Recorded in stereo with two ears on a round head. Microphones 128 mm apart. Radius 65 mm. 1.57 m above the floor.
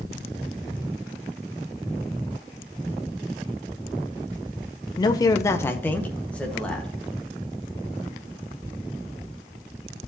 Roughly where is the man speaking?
Left.